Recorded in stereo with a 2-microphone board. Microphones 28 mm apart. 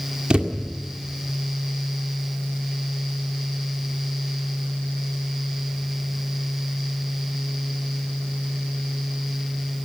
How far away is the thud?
About 1.9 m.